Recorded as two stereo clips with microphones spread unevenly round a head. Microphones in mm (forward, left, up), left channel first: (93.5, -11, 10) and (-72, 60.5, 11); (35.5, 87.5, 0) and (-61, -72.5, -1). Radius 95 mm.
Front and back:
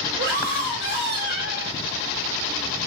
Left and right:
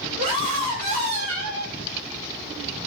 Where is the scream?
175° right, 3 m.